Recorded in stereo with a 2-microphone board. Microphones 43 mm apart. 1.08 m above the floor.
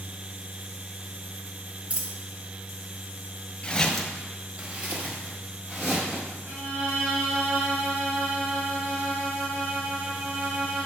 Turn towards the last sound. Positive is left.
turn(degrees=-50)  # may be behind; listen again after turning